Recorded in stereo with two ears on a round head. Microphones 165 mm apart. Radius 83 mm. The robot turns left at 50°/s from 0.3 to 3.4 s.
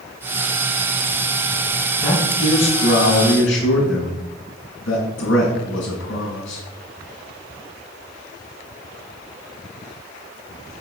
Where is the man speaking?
175° left, 4.5 m; by 6.6 s 105° left, 4.5 m.